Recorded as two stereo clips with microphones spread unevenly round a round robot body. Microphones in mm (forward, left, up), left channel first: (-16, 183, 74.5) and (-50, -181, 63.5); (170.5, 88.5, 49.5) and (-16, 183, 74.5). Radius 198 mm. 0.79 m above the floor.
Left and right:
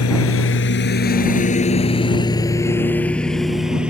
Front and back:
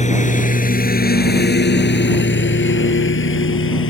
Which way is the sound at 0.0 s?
30° left.